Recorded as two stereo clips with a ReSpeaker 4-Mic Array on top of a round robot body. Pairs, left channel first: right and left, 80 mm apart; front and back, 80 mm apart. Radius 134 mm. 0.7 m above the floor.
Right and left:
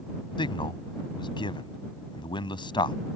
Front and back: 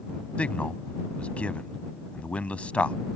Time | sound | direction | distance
0.4 | a man speaking | 75° right | ?